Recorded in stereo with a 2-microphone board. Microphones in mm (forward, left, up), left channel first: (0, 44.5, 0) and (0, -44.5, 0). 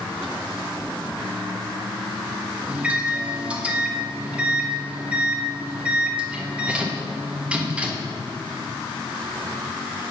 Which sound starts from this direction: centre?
A microwave, at 2.7 s.